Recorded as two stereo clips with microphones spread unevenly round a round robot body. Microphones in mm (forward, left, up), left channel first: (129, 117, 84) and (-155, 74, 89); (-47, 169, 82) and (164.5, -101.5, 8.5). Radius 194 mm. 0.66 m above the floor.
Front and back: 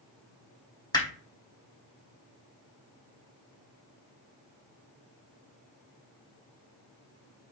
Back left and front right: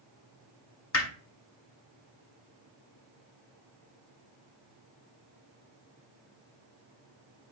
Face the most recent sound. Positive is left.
turn(degrees=85)